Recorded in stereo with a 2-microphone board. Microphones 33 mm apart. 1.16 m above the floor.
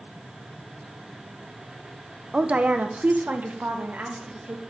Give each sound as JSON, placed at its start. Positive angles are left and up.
{"t": 2.3, "sound": "a woman speaking", "side_deg": -35, "distance_m": 0.6}